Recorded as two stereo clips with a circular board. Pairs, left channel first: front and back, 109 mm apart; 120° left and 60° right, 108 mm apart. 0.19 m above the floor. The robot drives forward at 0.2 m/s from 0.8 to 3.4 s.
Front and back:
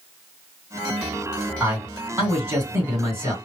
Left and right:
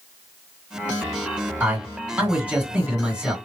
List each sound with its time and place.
1.6 s a man speaking: 120° right, 1.9 m; by 3.3 s 135° right, 2 m